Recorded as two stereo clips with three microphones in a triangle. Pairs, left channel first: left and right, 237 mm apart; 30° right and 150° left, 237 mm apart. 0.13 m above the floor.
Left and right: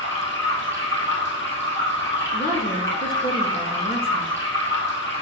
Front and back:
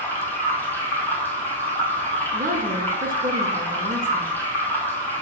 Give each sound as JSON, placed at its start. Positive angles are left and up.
{"t": 0.0, "sound": "running water", "azimuth_deg": 50, "distance_m": 1.7}
{"t": 2.3, "sound": "a woman speaking", "azimuth_deg": 120, "distance_m": 1.7}